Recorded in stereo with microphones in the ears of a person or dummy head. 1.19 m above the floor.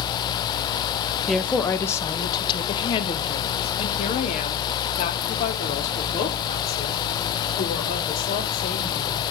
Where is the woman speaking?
5° left (ahead or behind), 1.0 m; by 9.2 s 50° left (ahead or behind), 5.5 m.